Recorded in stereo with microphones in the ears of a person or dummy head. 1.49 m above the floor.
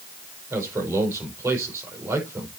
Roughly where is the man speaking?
Centre.